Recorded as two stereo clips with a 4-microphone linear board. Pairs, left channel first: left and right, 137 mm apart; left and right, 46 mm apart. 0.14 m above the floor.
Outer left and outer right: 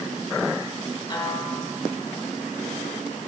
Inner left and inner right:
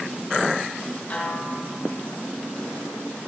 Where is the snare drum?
35° left (ahead or behind), 2.5 m.